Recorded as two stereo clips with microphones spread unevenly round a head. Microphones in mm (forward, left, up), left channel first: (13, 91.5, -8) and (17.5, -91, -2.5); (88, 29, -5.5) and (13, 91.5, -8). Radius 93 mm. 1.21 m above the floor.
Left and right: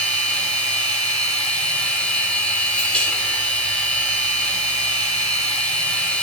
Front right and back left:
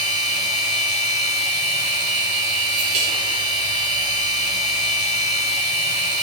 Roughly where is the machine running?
Behind.